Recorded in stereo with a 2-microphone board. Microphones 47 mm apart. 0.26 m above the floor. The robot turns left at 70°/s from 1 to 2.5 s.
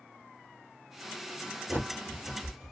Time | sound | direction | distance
1.7 | a bird | 50° right (ahead or behind) | 1.7 m